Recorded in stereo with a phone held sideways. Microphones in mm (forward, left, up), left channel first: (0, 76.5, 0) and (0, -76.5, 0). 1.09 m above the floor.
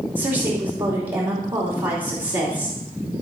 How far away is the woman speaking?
About 3 m.